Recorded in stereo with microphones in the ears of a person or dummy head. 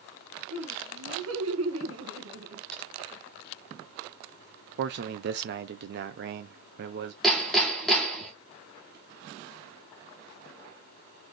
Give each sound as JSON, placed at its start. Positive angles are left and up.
{"t": 0.5, "sound": "laughter", "side_deg": -70, "distance_m": 2.0}
{"t": 2.7, "sound": "typing on a keyboard", "side_deg": 0, "distance_m": 1.3}
{"t": 4.8, "sound": "a man speaking", "side_deg": -60, "distance_m": 0.6}
{"t": 7.2, "sound": "hammering", "side_deg": 0, "distance_m": 1.5}